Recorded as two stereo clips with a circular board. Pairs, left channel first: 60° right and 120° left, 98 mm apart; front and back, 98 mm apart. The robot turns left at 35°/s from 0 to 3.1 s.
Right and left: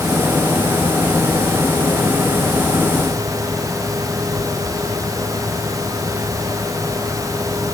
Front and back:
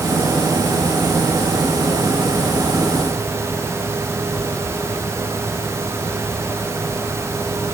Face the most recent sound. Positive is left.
No sound to turn to.